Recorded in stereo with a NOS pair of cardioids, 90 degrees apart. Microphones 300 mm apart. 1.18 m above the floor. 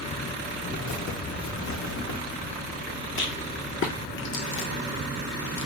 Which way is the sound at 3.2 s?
45° left.